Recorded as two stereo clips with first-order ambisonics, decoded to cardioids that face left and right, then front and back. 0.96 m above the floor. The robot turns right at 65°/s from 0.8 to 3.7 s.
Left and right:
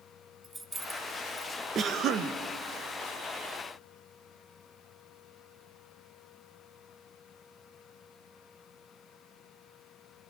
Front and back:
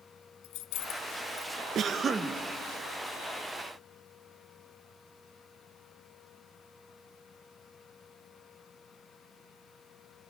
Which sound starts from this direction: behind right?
A cough, at 1.8 s.